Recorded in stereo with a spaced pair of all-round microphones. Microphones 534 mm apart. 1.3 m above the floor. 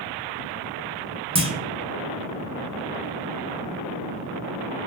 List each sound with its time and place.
1.4 s a clunk: 10° right (ahead or behind), 0.6 m